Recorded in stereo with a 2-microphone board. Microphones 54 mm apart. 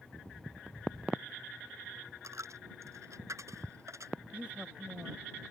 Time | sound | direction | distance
2.2 | a dropped coin | 70° right (ahead or behind) | ?
4.3 | a woman speaking | 25° right (ahead or behind) | ?